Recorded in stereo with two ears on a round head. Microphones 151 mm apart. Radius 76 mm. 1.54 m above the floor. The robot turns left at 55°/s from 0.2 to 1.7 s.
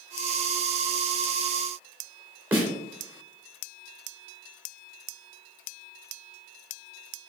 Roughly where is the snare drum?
Centre.